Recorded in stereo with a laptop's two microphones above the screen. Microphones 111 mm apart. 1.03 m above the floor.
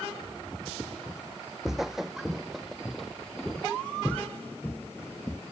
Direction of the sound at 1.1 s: 5° right (ahead or behind).